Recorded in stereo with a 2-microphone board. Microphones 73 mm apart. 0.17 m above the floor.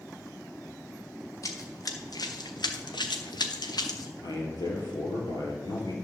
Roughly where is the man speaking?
Left.